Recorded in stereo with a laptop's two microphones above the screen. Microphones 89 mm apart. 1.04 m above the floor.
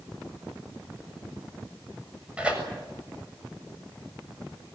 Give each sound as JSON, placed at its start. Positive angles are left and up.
{"t": 2.4, "sound": "tearing paper", "side_deg": -10, "distance_m": 7.0}